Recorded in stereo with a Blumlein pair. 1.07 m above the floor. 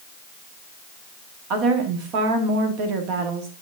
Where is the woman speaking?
40° right, 1.9 m.